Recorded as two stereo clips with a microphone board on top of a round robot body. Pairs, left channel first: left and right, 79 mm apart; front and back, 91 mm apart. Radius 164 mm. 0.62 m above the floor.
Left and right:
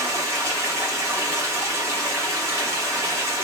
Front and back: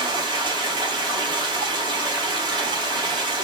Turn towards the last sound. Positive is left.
turn(degrees=-145)